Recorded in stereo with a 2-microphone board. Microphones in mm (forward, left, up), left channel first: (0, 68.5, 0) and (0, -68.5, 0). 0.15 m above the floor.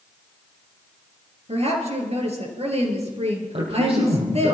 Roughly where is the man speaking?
Right.